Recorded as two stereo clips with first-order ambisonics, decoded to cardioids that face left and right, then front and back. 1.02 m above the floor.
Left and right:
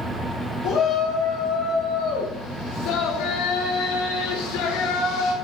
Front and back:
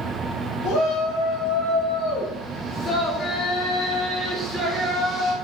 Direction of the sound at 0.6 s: 50° left.